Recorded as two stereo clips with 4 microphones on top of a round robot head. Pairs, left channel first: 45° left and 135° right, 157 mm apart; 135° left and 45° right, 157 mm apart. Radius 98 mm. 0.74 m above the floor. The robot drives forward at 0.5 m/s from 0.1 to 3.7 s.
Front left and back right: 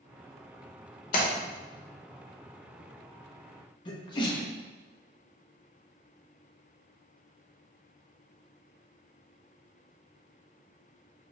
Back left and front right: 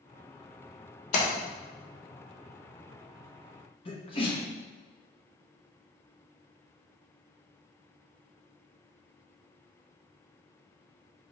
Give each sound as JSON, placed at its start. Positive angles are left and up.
{"t": 1.1, "sound": "a splash", "azimuth_deg": 90, "distance_m": 0.8}
{"t": 3.9, "sound": "a sneeze", "azimuth_deg": 95, "distance_m": 1.0}